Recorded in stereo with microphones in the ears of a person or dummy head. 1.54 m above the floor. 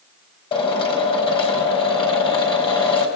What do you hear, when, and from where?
0.5 s a drill: 25° left (ahead or behind), 4.5 m